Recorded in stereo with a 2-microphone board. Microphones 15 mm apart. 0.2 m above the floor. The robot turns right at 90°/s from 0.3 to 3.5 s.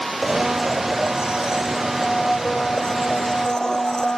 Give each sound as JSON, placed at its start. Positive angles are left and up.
{"t": 0.2, "sound": "a blender", "azimuth_deg": -160}